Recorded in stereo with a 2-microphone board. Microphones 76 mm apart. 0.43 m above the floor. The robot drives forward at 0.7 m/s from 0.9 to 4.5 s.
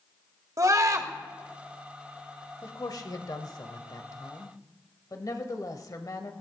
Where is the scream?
45° right (ahead or behind), 1.7 m; by 1.1 s 50° right (ahead or behind), 1.6 m.